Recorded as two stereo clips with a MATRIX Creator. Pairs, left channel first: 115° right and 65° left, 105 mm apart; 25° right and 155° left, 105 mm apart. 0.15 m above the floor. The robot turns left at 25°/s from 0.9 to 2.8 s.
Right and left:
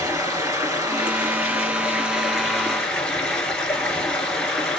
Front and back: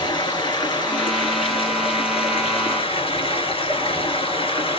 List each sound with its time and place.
0.0 s running water: 15° left, 1.8 m; by 4.8 s 35° right, 1.8 m